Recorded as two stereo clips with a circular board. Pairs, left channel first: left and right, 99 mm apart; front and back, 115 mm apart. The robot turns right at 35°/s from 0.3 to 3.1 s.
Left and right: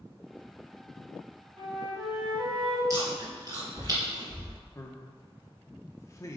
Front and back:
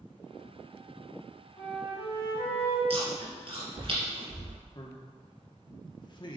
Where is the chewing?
145° right, 3 m; by 4.6 s 140° right, 3 m.